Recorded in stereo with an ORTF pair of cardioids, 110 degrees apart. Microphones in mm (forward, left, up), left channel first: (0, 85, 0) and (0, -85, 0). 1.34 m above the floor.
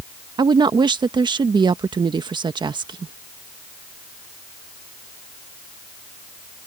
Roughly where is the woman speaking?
Ahead right.